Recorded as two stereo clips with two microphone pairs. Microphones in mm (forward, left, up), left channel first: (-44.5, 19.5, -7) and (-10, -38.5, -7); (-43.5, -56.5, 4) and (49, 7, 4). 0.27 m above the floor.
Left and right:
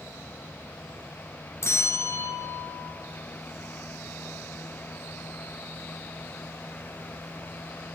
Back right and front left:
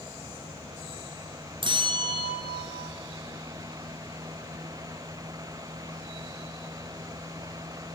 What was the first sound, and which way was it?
A bell, 75° left.